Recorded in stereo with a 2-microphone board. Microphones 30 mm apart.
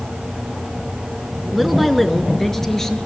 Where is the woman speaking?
5° right (ahead or behind), 1.9 m; by 3.0 s 15° left (ahead or behind), 2.5 m.